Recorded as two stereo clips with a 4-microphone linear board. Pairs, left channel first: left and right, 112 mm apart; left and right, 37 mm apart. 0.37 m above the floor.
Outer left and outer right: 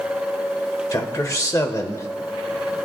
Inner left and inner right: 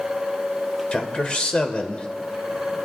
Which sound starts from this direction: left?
A man speaking, at 0.9 s.